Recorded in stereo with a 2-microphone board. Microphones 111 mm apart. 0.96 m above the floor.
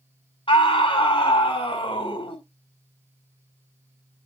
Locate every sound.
0.5 s a scream: 50° left (ahead or behind), 4.5 m